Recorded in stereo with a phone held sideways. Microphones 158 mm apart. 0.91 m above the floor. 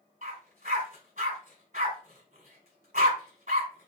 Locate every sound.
0.2 s a dog barking: 60° right (ahead or behind), 1.5 m